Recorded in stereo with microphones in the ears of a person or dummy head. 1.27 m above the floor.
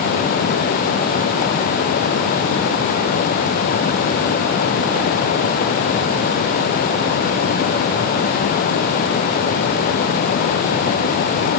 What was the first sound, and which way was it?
Only background noise.